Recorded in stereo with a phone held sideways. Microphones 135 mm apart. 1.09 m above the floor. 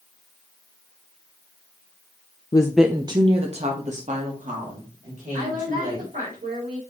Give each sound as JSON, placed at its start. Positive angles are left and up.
{"t": 2.5, "sound": "a woman speaking", "side_deg": 30, "distance_m": 0.5}
{"t": 5.3, "sound": "a woman speaking", "side_deg": -85, "distance_m": 4.5}